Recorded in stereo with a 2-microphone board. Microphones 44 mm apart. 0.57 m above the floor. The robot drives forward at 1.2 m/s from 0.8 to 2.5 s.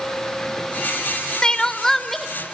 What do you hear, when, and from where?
1.4 s crying: 20° left (ahead or behind), 0.6 m; by 2.3 s 10° left (ahead or behind), 1.4 m